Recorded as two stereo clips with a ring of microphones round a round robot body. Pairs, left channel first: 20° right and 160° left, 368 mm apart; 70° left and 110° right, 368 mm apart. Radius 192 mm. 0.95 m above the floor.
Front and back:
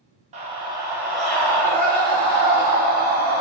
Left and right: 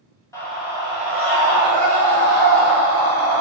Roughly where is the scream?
Behind left.